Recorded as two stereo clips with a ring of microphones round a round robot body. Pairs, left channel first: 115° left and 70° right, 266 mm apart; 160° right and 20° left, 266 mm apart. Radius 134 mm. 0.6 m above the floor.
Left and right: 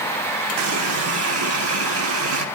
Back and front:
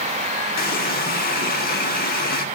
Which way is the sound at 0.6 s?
100° right.